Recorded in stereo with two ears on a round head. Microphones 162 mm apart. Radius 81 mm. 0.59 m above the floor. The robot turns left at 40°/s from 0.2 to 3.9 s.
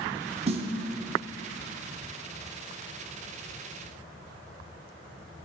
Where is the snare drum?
35° right (ahead or behind), 0.6 m; by 0.7 s 30° right (ahead or behind), 0.6 m.